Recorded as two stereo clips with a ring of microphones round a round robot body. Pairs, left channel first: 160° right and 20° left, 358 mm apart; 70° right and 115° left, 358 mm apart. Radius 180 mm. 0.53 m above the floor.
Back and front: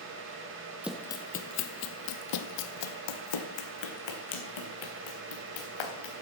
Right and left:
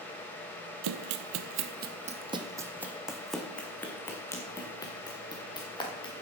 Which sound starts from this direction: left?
Running footsteps, at 0.8 s.